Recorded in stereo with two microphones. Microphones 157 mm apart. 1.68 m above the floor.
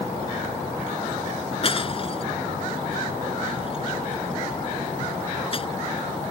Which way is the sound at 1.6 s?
40° left (ahead or behind).